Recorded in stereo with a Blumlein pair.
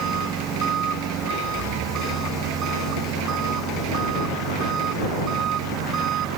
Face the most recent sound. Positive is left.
turn(degrees=-30)